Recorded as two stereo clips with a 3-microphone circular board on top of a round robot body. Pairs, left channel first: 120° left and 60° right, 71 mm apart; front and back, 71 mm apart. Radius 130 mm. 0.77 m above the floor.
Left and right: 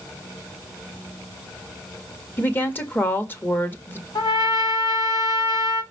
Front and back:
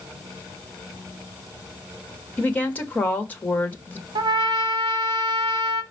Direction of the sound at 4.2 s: 160° left.